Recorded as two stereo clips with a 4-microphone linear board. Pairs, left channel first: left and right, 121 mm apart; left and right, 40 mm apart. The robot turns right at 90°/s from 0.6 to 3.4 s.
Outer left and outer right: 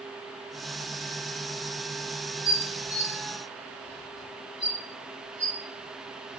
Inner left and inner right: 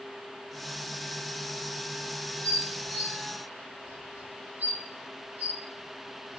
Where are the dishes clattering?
30° left (ahead or behind), 1.9 m; by 6.4 s 55° right (ahead or behind), 1.9 m.